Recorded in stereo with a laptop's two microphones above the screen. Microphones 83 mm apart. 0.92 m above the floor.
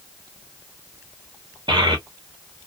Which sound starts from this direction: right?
A child speaking, at 1.7 s.